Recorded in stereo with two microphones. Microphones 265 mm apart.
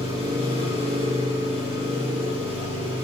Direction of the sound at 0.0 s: 20° right (ahead or behind).